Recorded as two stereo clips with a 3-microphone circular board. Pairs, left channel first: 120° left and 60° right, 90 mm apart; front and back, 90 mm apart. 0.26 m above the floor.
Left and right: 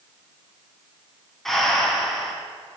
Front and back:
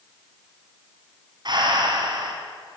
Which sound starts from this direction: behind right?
Breathing, at 1.4 s.